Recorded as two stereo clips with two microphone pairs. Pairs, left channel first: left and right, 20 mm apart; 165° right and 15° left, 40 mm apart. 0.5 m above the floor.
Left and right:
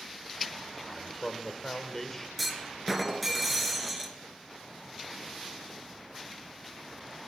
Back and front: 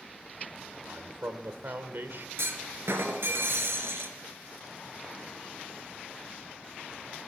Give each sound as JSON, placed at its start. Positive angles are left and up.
{"t": 0.9, "sound": "a man speaking", "azimuth_deg": 20, "distance_m": 1.3}
{"t": 2.4, "sound": "a clunk", "azimuth_deg": 0, "distance_m": 2.0}